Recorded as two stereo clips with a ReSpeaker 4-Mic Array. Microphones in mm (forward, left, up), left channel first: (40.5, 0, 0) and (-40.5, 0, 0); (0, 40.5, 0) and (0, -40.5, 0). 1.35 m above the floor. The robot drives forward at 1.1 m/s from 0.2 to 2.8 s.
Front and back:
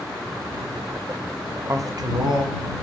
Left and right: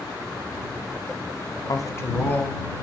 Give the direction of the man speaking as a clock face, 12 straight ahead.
8 o'clock.